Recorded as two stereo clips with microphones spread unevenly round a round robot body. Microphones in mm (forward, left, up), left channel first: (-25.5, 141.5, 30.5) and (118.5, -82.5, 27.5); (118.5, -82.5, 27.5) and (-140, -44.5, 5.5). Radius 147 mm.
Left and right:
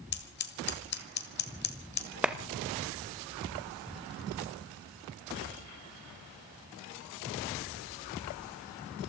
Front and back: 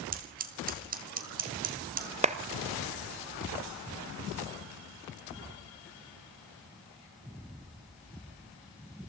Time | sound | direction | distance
0.1 | scissors | 145° left | 1.5 m
2.2 | a clap | 140° right | 0.8 m